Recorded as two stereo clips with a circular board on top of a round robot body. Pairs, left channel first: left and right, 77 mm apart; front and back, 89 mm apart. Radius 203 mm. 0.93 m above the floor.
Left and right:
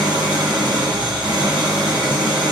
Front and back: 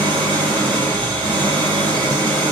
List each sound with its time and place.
0.0 s an engine running: 165° right, 9 m